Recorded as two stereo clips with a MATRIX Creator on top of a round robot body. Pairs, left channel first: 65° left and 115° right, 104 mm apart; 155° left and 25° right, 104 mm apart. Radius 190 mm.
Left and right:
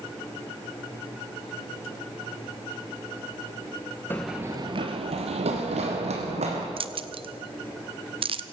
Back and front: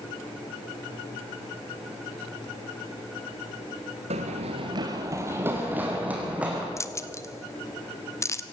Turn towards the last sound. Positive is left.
turn(degrees=-140)